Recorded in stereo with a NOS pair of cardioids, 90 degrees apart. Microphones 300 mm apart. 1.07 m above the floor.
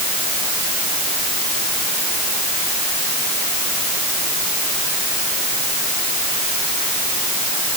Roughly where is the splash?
I don't hear a splash.